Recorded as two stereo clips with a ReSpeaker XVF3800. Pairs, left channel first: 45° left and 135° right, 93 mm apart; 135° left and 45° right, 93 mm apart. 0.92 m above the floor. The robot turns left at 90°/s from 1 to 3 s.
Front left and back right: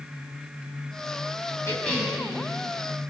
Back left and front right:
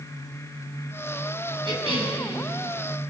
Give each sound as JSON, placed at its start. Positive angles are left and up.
{"t": 1.6, "sound": "a cough", "azimuth_deg": -15, "distance_m": 7.5}